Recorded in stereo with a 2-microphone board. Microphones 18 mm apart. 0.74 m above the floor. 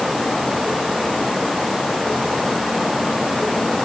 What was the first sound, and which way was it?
Only background noise.